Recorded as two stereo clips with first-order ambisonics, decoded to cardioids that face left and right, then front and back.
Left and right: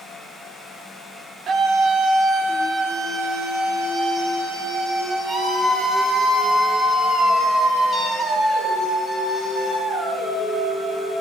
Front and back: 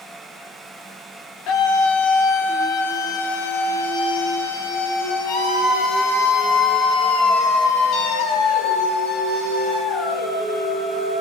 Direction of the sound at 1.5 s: 30° right.